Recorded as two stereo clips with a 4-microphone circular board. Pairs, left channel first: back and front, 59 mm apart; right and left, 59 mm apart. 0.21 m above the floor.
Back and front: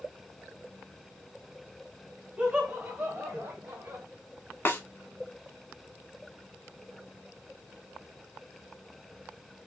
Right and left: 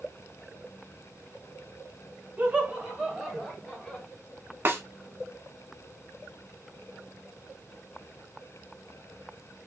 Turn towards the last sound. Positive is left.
turn(degrees=135)